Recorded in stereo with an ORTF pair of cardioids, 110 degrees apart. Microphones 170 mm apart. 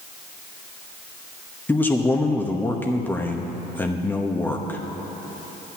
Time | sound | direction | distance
1.7 | a man speaking | 10° left | 0.9 m